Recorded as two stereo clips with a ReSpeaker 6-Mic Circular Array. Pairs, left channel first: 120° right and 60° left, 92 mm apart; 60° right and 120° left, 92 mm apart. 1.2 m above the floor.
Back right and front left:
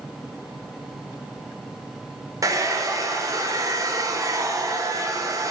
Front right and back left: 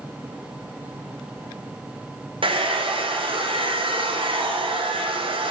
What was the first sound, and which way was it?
A hair dryer, 110° left.